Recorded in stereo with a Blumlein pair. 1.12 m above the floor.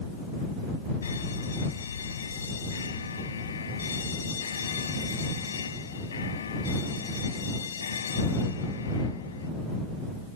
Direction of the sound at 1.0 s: 70° left.